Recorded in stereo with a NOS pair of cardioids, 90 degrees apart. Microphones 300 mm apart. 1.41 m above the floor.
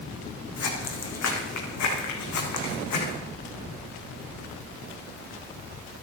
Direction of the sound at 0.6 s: 55° left.